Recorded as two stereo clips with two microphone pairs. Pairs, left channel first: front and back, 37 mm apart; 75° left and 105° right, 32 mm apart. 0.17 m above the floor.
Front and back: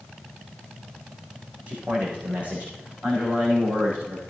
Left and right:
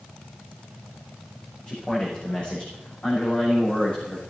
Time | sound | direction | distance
1.7 | a man speaking | 135° left | 9 m